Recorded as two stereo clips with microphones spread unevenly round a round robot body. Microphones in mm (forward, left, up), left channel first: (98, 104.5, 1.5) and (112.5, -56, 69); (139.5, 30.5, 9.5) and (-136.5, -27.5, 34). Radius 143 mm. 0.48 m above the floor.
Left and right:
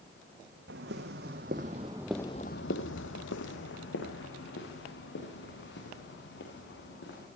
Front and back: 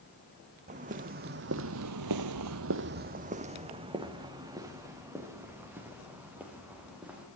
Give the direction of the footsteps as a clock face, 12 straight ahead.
3 o'clock.